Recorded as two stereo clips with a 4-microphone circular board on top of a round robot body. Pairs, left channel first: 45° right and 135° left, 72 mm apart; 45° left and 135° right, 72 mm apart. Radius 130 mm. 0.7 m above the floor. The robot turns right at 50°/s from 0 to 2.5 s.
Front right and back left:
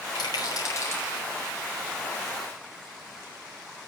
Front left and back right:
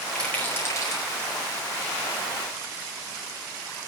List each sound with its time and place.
0.1 s a rattle: 35° right, 4.5 m; by 1.1 s 15° left, 4.5 m